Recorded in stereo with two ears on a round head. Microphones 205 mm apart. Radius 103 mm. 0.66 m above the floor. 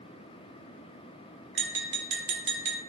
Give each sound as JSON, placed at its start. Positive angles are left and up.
{"t": 1.6, "sound": "tapping", "side_deg": -50, "distance_m": 0.7}